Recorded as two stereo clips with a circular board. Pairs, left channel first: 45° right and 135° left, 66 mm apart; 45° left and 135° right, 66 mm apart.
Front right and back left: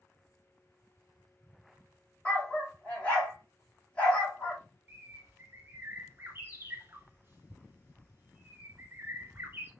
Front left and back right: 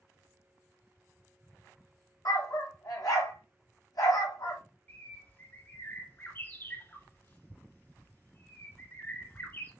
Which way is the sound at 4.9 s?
90° left.